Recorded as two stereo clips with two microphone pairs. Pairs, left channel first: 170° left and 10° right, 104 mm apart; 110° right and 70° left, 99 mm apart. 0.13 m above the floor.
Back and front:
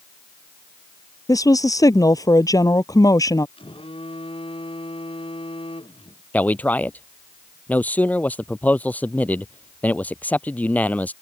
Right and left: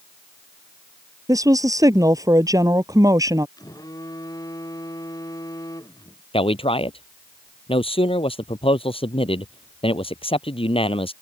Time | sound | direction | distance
1.3 | a woman speaking | 115° left | ?
3.6 | a phone buzzing | 165° right | ?
6.3 | a man speaking | 120° right | ?